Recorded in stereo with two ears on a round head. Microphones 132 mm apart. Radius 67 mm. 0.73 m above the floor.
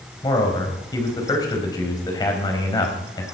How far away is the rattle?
No rattle in this recording.